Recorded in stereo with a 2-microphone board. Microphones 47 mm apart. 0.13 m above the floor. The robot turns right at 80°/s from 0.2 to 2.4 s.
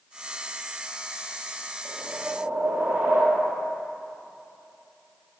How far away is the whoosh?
About 2 m.